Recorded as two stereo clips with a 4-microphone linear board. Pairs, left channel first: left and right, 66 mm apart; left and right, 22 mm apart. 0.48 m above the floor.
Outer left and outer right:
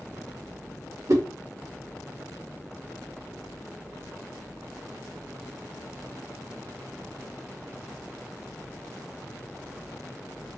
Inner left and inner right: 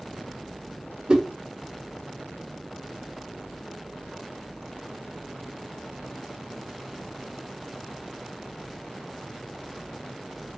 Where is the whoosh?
55° right (ahead or behind), 0.8 m.